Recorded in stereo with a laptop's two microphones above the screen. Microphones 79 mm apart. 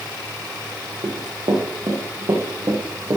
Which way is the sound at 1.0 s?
70° right (ahead or behind).